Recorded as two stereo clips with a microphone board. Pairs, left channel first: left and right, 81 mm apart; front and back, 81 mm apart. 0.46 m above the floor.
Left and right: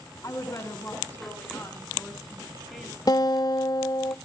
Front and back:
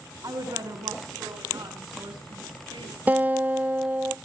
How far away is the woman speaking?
About 4.5 m.